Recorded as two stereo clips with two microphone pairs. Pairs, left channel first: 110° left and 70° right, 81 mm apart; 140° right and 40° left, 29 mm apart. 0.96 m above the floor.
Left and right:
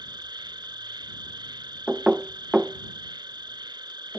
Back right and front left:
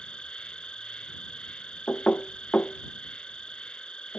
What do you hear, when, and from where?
0.0 s an insect: 90° right
1.9 s knocking: 145° right